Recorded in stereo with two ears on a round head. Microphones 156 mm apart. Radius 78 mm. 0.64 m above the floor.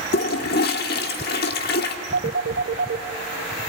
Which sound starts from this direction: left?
A toilet flushing, at 0.1 s.